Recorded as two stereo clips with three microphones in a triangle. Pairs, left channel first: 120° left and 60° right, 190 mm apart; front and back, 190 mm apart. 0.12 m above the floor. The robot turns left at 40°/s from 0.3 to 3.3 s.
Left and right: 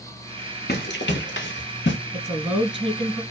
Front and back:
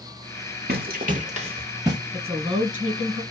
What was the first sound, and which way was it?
Running footsteps, 150° left.